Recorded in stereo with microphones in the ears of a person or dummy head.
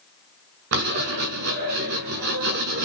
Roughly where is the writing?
Right.